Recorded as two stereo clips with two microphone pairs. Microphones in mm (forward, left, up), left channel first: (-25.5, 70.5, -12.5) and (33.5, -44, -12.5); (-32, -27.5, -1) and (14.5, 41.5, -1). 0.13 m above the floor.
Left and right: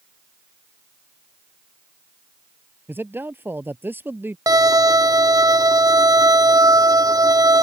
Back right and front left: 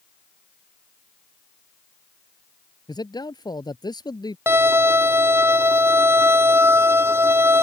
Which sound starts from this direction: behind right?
A man speaking, at 2.9 s.